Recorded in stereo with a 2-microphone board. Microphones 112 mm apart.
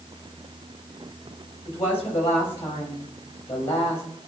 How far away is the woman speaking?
About 5 m.